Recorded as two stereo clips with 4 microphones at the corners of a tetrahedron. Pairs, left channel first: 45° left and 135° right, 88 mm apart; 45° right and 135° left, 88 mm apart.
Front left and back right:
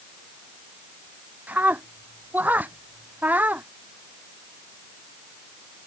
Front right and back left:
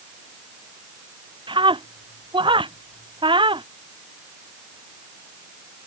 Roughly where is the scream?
Behind left.